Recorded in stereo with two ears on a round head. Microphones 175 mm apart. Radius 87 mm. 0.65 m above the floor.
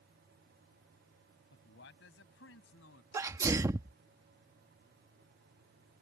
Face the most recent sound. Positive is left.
turn(degrees=-15)  # may be behind; listen again after turning